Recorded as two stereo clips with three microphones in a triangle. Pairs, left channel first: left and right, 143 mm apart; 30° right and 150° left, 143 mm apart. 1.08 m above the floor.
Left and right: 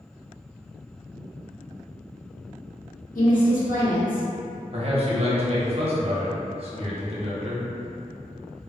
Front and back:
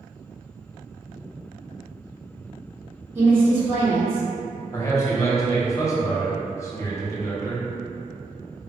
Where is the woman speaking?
80° left, 1.3 m.